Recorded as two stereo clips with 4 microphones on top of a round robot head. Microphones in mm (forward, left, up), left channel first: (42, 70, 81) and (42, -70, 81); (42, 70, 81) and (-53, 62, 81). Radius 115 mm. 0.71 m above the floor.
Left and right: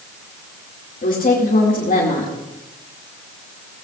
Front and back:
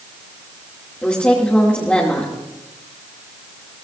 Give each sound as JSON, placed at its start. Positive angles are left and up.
{"t": 1.0, "sound": "a woman speaking", "azimuth_deg": 80, "distance_m": 2.5}